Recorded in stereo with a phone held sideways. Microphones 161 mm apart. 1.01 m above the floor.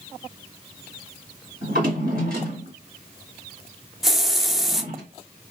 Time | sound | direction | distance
1.6 | a drawer | 70° right (ahead or behind) | 2.0 m
4.0 | a hiss | centre (ahead or behind) | 0.6 m